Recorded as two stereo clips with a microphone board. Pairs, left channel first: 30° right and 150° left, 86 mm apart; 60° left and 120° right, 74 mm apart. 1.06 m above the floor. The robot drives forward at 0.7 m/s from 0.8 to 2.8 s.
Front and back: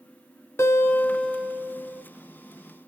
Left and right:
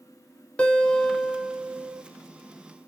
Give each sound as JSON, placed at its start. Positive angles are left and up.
{"t": 0.6, "sound": "a guitar", "azimuth_deg": -5, "distance_m": 0.7}